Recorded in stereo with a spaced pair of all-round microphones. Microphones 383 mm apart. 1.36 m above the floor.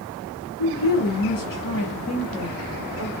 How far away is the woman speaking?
About 0.8 m.